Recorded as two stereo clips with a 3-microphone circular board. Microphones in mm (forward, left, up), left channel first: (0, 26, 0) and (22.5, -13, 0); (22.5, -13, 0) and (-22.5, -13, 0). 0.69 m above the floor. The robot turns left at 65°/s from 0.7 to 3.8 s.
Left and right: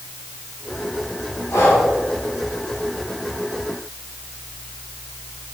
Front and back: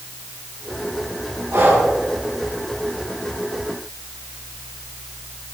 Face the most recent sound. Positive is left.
turn(degrees=0)